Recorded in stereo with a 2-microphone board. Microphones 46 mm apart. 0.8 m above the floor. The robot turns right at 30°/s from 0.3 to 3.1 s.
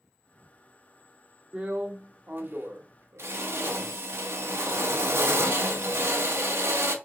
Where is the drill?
155° right, 0.8 m; by 7.0 s 110° right, 0.8 m.